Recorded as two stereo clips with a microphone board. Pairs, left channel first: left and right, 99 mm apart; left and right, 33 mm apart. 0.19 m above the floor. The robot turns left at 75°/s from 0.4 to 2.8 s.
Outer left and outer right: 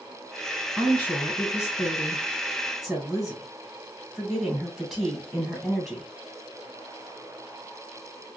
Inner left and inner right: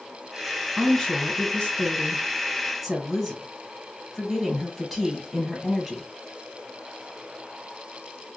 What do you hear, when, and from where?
0.8 s a woman speaking: 15° left (ahead or behind), 1.6 m; by 6.0 s centre (ahead or behind), 1.6 m